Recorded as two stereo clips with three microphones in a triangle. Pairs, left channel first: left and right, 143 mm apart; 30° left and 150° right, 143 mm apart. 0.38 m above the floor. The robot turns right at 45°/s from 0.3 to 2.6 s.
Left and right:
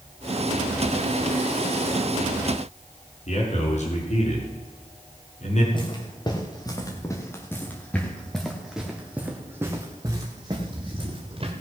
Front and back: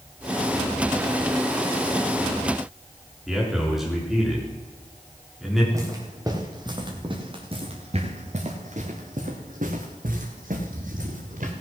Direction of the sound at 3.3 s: 120° left.